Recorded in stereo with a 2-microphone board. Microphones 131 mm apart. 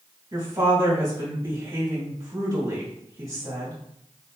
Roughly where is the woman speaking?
Right.